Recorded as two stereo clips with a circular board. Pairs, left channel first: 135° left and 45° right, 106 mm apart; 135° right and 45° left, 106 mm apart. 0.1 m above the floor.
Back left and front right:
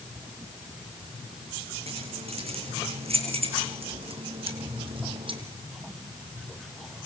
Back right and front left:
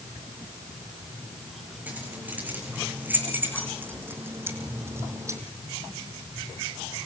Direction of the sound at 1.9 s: 30° right.